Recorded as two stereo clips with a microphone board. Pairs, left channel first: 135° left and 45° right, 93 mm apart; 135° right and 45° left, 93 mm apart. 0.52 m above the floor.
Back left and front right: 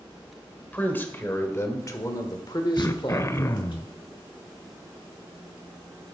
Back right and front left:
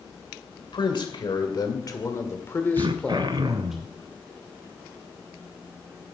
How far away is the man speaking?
About 1.7 m.